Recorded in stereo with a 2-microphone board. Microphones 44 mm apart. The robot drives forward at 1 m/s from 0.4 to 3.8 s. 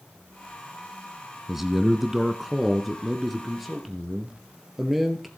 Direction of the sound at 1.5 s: 5° right (ahead or behind).